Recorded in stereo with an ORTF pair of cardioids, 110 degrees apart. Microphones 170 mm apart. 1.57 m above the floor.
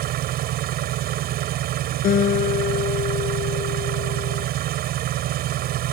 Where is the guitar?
60° left.